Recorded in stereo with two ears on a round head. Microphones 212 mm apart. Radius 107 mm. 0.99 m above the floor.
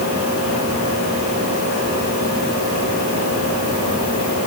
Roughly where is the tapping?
I don't hear tapping.